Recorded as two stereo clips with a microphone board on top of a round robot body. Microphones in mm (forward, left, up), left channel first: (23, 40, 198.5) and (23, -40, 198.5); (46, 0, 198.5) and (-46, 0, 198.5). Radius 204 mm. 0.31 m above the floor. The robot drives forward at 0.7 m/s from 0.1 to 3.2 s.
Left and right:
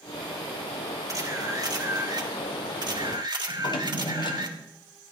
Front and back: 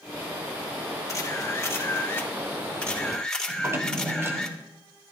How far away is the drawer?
About 1.8 m.